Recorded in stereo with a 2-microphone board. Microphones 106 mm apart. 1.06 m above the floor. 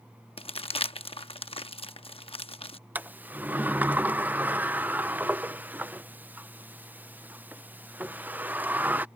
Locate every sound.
0.4 s crumpling: 65° left (ahead or behind)
3.0 s a sliding door: 15° right (ahead or behind)